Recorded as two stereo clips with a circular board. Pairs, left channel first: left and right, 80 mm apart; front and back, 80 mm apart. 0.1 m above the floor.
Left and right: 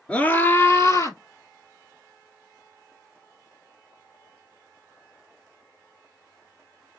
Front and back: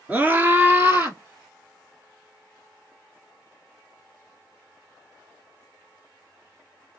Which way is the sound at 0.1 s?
140° left.